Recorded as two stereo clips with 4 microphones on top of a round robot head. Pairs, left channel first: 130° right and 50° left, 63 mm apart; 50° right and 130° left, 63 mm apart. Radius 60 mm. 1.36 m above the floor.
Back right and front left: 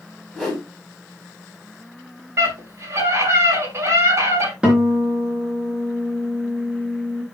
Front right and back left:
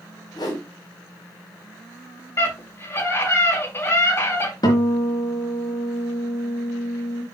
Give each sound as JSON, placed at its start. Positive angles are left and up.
{"t": 0.3, "sound": "a whoosh", "azimuth_deg": -35, "distance_m": 5.5}
{"t": 2.4, "sound": "a scream", "azimuth_deg": 0, "distance_m": 6.0}
{"t": 4.6, "sound": "a guitar", "azimuth_deg": -25, "distance_m": 4.0}